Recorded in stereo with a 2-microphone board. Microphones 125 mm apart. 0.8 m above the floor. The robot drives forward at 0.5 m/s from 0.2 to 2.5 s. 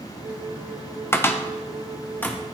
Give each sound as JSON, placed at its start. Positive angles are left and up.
{"t": 1.1, "sound": "a cupboard door", "side_deg": 20, "distance_m": 0.6}